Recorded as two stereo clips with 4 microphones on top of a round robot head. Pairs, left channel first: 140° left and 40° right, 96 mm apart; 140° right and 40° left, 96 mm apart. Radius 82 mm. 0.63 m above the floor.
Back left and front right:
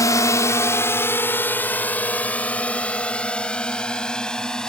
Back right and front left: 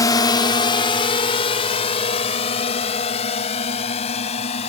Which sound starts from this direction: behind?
A drone, at 0.0 s.